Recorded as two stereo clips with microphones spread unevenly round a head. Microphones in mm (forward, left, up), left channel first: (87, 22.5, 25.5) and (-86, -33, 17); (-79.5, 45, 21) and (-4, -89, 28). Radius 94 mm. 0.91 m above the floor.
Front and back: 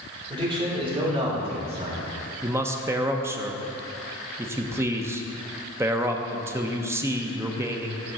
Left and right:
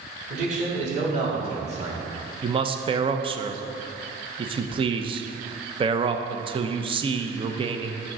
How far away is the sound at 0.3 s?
About 3 m.